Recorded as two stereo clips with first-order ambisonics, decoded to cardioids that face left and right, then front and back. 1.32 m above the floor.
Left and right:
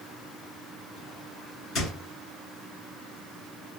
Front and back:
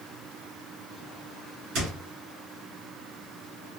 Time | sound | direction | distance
1.8 | a squeak | 140° left | 2 m